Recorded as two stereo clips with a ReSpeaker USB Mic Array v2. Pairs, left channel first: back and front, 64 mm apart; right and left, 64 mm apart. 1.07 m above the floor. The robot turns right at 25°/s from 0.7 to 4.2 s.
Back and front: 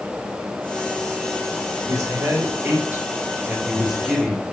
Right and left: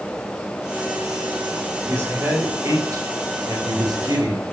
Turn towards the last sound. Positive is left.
turn(degrees=90)